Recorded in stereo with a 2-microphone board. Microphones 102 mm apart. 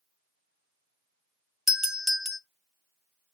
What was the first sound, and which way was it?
A doorbell, 5° right (ahead or behind).